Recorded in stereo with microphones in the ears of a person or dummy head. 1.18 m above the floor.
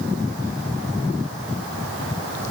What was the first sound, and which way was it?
Only background noise.